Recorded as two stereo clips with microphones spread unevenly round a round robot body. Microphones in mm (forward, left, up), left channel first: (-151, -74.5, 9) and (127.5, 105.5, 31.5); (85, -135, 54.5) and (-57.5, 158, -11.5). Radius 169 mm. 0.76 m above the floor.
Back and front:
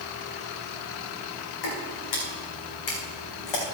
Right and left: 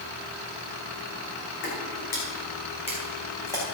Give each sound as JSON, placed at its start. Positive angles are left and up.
{"t": 1.6, "sound": "footsteps", "azimuth_deg": -120, "distance_m": 3.0}